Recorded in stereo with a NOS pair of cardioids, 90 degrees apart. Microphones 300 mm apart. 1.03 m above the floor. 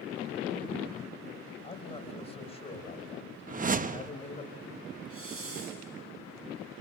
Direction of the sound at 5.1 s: 45° right.